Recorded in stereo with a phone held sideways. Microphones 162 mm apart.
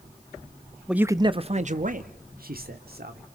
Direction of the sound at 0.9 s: 5° right (ahead or behind).